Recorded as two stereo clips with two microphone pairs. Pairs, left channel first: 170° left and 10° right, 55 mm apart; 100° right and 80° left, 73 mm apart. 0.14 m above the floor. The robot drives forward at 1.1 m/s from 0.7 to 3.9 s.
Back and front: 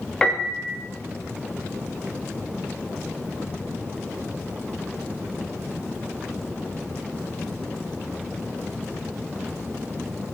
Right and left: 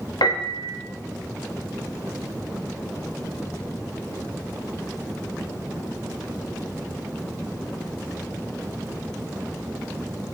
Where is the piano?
115° right, 3.5 m.